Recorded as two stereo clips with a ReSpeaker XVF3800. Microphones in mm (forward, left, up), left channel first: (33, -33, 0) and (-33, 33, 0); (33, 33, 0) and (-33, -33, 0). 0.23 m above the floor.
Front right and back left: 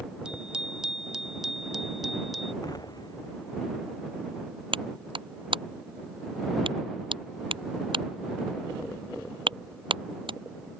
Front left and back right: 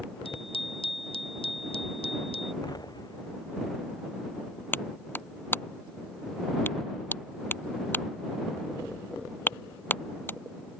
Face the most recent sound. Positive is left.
turn(degrees=110)